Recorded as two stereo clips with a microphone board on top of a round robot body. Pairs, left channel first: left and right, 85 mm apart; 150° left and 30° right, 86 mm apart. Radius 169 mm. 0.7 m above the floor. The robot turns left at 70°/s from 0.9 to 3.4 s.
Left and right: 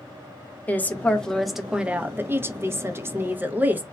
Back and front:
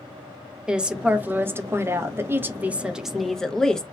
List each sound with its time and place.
0.7 s a woman speaking: 40° left, 0.8 m; by 3.8 s 135° right, 0.8 m